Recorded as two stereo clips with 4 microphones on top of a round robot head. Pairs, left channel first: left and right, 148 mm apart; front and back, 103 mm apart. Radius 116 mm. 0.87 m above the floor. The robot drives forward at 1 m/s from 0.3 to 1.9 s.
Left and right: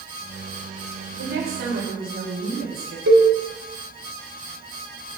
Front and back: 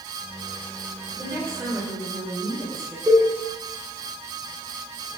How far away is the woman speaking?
About 3 m.